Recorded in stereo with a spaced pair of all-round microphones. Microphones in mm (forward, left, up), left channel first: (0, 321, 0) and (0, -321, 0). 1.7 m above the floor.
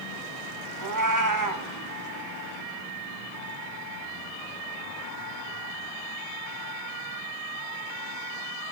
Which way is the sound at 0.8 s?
30° right (ahead or behind).